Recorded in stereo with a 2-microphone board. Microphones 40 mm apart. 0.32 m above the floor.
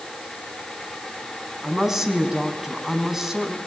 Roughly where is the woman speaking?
Centre.